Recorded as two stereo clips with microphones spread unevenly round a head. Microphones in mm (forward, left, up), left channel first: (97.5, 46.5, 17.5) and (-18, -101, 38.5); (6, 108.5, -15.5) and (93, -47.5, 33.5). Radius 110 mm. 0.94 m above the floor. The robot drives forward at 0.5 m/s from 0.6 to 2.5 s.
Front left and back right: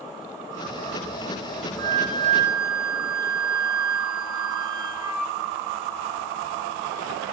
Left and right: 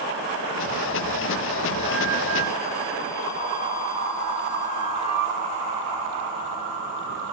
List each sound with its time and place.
1.8 s a flute: 175° right, 1.0 m